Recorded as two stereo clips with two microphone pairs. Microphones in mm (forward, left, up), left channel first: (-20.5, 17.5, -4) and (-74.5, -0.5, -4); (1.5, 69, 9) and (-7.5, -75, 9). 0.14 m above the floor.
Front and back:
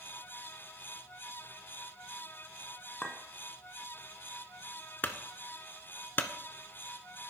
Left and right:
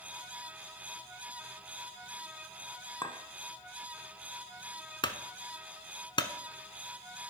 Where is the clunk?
50° left, 0.6 m.